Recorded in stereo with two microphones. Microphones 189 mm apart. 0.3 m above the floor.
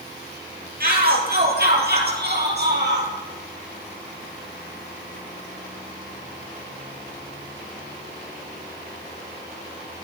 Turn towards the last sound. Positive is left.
turn(degrees=-60)  # may be behind; listen again after turning